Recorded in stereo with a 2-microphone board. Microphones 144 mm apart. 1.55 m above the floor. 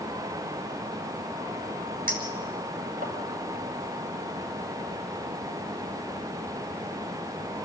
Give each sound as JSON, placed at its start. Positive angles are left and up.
{"t": 2.1, "sound": "a clink", "side_deg": -80, "distance_m": 5.0}